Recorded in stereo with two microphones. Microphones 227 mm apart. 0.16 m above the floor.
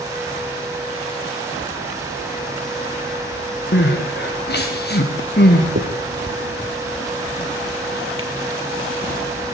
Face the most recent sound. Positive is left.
turn(degrees=-65)  # may be behind; listen again after turning